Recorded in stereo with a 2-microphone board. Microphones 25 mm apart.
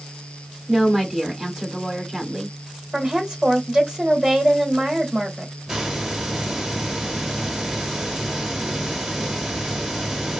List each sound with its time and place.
0.7 s a woman speaking: 20° right (ahead or behind), 1.0 m
2.9 s a woman speaking: 25° right (ahead or behind), 1.3 m
5.7 s a hiss: 20° right (ahead or behind), 0.9 m